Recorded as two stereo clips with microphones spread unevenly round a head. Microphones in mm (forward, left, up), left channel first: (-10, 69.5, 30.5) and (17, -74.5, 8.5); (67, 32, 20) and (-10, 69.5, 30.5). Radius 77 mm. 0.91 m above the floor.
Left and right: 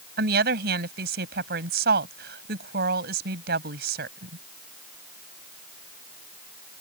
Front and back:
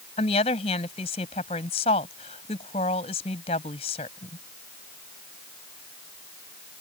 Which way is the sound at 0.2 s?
55° right.